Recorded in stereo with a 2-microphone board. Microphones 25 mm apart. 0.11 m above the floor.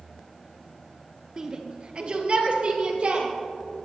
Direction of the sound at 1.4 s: 25° right (ahead or behind).